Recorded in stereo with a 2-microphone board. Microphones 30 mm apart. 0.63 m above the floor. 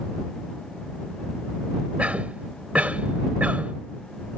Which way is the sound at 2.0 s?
60° right (ahead or behind).